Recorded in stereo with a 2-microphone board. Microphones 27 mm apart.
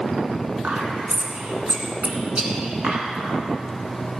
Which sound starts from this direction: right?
Whispering, at 0.6 s.